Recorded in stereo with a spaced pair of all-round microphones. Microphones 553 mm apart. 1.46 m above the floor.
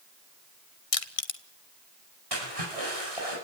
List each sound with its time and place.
0.9 s crushing: 75° left (ahead or behind), 1.1 m
2.3 s a splash: 85° right, 8.5 m